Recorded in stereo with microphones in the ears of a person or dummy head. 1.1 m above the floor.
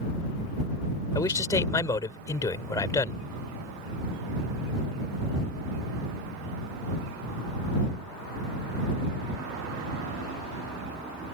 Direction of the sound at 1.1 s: 15° left (ahead or behind).